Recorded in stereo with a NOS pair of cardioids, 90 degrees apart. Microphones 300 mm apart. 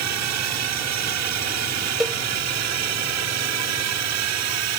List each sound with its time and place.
0.0 s a drone: 70° right
2.0 s a cowbell: straight ahead